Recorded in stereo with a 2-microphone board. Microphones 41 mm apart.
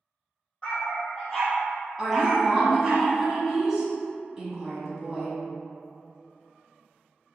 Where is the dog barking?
15° left (ahead or behind), 1.8 m; by 3.0 s 40° right (ahead or behind), 1.0 m.